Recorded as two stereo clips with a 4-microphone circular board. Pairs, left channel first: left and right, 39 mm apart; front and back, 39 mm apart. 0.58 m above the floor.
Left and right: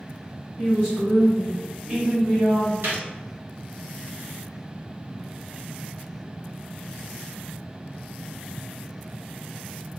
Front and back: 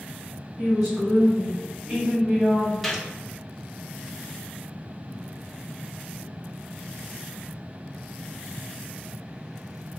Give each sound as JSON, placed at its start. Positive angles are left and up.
{"t": 0.6, "sound": "a woman speaking", "azimuth_deg": -120, "distance_m": 1.8}
{"t": 2.8, "sound": "a gunshot", "azimuth_deg": -85, "distance_m": 0.8}